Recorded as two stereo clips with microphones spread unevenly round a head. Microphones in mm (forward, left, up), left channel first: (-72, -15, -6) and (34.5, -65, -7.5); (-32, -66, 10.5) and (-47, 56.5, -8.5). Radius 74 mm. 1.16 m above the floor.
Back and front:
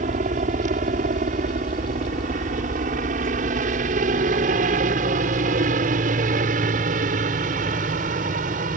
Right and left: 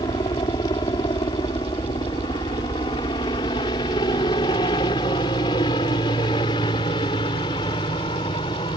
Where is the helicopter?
20° right.